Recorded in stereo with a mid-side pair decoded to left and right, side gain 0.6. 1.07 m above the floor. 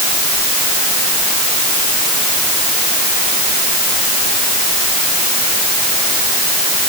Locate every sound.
Only background noise.